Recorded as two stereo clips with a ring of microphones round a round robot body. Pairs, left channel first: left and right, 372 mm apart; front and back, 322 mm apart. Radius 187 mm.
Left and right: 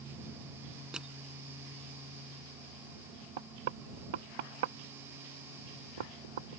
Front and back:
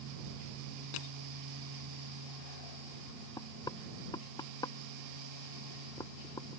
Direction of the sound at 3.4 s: 80° right.